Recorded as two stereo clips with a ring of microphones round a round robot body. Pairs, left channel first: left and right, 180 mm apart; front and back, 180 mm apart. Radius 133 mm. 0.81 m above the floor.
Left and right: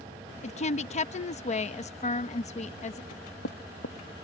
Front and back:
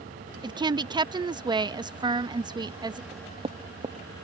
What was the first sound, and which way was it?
A woman speaking, 125° left.